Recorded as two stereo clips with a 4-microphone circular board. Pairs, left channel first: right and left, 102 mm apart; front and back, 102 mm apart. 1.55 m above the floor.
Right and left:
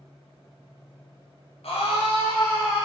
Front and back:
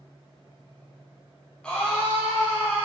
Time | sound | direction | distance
1.6 | a scream | 80° right | 0.6 m